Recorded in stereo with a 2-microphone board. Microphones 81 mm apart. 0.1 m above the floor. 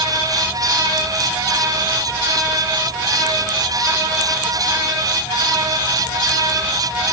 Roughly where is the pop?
No pop in this recording.